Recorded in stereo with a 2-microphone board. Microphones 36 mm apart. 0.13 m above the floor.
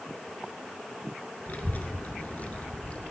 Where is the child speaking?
50° left (ahead or behind), 1.1 m; by 3.1 s 40° left (ahead or behind), 1.4 m.